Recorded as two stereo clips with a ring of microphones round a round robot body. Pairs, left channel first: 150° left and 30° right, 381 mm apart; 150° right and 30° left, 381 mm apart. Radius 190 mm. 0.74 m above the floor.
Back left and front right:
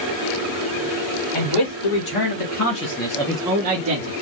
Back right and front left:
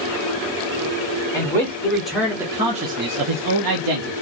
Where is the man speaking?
130° left, 2.5 m; by 4.1 s 5° left, 1.3 m.